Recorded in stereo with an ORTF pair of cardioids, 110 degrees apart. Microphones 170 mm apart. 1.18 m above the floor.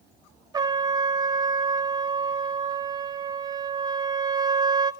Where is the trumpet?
25° right, 1.1 m.